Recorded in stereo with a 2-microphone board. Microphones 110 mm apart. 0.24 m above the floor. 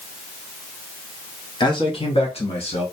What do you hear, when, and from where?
1.6 s a man speaking: 45° left (ahead or behind), 1.2 m; by 2.8 s 65° left (ahead or behind), 2.5 m